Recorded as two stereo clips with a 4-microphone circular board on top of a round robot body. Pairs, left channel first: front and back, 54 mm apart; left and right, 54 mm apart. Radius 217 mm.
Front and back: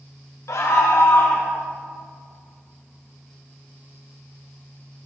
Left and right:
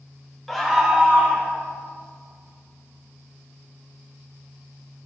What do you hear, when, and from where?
0.5 s a scream: 5° left, 1.0 m; by 1.5 s 35° right, 1.2 m